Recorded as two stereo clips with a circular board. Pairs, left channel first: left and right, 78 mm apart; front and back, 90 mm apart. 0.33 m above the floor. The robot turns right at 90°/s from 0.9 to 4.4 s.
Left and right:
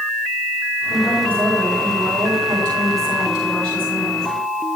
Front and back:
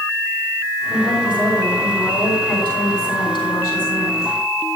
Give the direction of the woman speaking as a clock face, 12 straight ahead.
8 o'clock.